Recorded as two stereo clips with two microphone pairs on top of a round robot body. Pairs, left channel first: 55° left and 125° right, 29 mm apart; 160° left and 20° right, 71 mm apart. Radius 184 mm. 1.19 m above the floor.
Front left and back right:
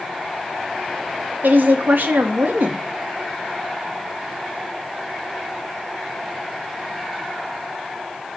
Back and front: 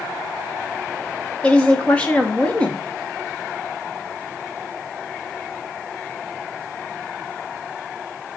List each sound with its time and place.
1.4 s a woman speaking: 125° right, 2 m